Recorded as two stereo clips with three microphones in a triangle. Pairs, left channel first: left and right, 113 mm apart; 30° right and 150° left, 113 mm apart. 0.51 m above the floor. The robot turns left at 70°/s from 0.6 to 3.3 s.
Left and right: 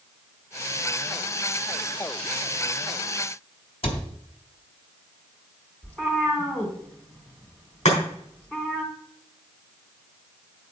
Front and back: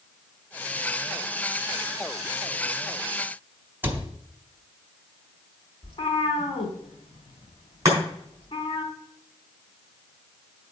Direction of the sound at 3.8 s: 80° left.